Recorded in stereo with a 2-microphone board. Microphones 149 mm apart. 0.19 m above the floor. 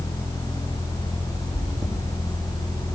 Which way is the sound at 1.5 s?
45° right (ahead or behind).